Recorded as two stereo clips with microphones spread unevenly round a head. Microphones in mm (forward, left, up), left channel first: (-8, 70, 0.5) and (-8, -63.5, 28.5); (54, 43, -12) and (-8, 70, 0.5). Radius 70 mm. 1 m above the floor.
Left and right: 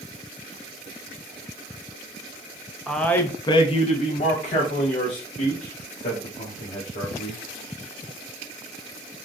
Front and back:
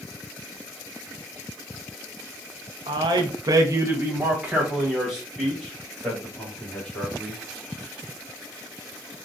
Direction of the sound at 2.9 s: 175° left.